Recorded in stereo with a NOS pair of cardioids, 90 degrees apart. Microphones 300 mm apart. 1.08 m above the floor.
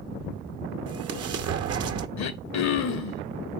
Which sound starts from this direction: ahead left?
Throat clearing, at 2.2 s.